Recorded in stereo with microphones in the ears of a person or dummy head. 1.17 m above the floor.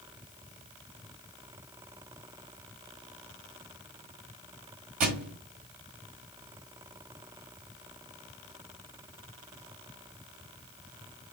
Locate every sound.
5.0 s a thud: 40° right (ahead or behind), 1.6 m